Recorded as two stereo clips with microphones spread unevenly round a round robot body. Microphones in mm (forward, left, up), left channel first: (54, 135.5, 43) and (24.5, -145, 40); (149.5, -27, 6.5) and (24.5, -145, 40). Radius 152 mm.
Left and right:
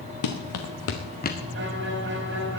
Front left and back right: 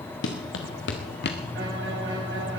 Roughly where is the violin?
Behind right.